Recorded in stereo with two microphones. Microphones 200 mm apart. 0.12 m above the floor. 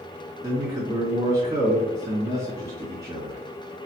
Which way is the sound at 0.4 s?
20° right (ahead or behind).